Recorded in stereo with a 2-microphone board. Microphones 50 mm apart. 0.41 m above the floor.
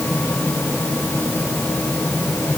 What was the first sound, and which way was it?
Only background noise.